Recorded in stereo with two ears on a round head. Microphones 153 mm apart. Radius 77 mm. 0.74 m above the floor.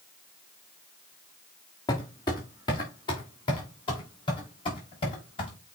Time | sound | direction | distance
1.9 | footsteps | 25° left (ahead or behind) | 3.5 m